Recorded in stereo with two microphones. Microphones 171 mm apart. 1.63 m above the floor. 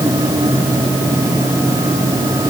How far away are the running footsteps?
I don't hear running footsteps.